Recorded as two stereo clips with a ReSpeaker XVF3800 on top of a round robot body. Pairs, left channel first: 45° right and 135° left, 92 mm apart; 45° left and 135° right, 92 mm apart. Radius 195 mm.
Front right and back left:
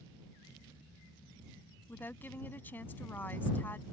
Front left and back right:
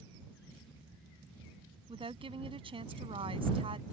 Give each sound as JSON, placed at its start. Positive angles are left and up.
{"t": 1.9, "sound": "a woman speaking", "azimuth_deg": -115}